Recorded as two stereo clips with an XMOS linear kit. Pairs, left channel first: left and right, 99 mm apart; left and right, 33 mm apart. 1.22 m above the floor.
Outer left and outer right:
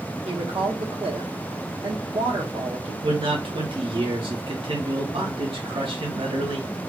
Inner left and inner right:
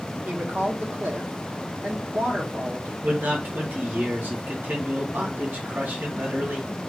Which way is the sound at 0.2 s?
75° right (ahead or behind).